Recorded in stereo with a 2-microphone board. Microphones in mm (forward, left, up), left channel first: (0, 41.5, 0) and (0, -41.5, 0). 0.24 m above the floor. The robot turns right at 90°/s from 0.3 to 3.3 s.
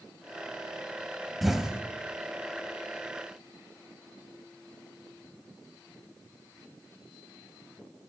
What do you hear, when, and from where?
1.4 s an explosion: centre (ahead or behind), 0.6 m; by 1.8 s 15° right (ahead or behind), 0.6 m